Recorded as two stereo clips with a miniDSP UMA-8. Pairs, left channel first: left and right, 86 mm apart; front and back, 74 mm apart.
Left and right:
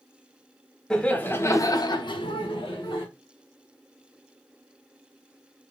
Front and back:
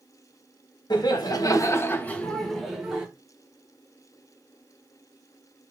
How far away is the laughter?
About 0.8 m.